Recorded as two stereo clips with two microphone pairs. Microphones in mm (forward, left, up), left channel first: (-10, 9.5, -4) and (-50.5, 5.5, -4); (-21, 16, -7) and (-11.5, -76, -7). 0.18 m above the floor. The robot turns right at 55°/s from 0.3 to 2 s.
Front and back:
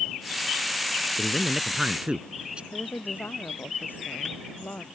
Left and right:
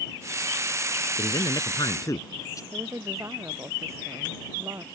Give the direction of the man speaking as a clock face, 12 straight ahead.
9 o'clock.